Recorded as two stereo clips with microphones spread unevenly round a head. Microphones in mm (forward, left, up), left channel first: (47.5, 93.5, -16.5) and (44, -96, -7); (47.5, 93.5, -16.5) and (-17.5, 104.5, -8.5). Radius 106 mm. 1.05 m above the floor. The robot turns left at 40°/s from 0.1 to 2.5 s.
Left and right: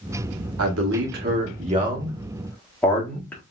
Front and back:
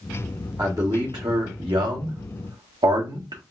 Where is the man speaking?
110° right, 1.5 m; by 3.4 s 170° left, 1.5 m.